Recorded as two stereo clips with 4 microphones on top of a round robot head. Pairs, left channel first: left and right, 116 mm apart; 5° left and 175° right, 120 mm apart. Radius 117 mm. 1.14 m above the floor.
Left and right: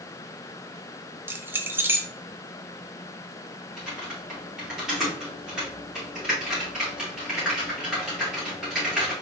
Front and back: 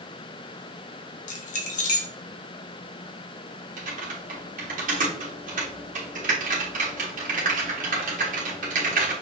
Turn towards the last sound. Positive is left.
turn(degrees=-175)